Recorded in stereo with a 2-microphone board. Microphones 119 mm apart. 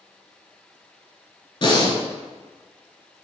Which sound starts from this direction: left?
Breathing, at 1.6 s.